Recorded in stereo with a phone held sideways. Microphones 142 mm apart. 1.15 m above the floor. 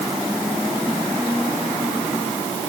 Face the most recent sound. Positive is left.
No sound to turn to.